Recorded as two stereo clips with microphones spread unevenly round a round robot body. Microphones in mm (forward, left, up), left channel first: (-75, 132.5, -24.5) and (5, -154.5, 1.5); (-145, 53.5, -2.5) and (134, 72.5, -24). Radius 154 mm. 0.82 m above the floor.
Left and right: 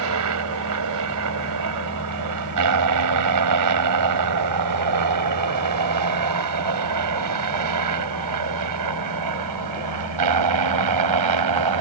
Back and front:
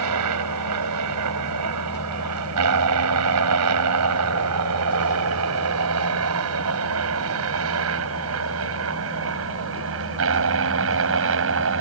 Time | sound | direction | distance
0.0 | a helicopter | 35° right | ?